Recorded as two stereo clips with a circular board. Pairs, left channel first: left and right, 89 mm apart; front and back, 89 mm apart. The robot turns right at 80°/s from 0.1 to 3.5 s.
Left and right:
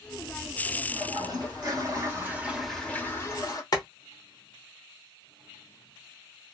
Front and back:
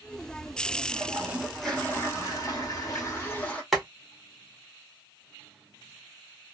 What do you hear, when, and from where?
0.9 s a toilet flushing: 140° right, 1.2 m; by 3.6 s 65° left, 1.2 m
3.7 s boiling: 90° left, 1.0 m